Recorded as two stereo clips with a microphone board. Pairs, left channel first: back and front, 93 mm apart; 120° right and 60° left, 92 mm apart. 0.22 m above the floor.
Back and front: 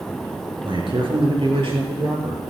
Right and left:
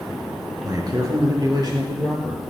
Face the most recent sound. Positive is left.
turn(degrees=15)